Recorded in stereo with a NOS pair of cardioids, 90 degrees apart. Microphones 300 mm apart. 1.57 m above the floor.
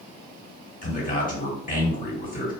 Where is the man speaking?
30° left, 1.6 m.